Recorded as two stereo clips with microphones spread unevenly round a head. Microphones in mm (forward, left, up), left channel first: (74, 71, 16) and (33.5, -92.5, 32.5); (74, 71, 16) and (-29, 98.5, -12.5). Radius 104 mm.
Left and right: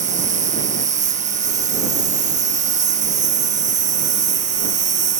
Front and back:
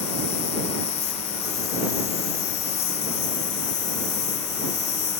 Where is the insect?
60° right.